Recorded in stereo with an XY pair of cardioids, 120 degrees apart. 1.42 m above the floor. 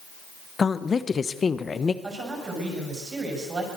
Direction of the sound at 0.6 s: 30° left.